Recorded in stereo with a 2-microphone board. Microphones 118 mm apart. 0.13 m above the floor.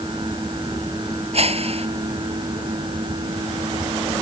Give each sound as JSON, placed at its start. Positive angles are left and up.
{"t": 1.3, "sound": "a whoosh", "side_deg": -55}